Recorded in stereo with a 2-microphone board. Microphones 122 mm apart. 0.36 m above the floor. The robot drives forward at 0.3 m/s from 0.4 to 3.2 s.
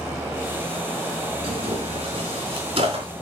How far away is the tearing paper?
About 4 m.